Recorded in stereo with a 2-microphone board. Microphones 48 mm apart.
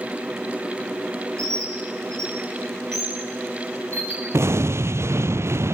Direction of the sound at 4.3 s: 65° right (ahead or behind).